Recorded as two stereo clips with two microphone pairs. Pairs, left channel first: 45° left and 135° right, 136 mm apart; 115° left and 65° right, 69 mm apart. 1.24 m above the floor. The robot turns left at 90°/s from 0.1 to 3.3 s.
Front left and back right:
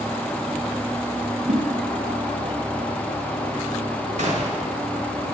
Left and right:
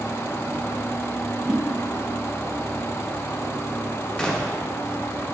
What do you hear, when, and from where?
1.5 s a whoosh: 130° right, 1.1 m; by 1.6 s 140° right, 1.1 m
4.2 s a gunshot: 165° right, 0.9 m